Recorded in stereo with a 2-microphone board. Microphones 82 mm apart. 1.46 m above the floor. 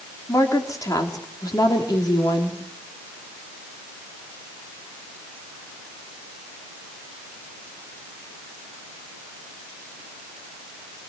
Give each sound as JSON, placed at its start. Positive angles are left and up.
{"t": 0.3, "sound": "a woman speaking", "side_deg": 45, "distance_m": 4.0}